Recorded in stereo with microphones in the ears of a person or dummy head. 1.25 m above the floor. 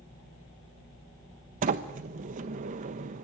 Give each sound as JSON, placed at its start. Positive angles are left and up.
{"t": 1.6, "sound": "a sliding door", "side_deg": -40, "distance_m": 1.1}